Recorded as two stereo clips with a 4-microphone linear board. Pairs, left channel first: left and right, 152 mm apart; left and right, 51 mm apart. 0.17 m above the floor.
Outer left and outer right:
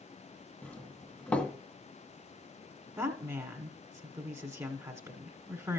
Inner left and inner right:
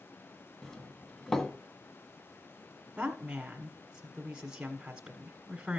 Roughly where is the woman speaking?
Right.